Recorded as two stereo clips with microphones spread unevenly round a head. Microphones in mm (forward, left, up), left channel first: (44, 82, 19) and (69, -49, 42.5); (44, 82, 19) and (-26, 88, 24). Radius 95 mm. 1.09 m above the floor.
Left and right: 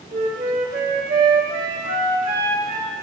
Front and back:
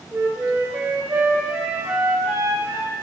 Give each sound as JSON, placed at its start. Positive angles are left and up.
{"t": 0.1, "sound": "a flute", "azimuth_deg": -110, "distance_m": 1.4}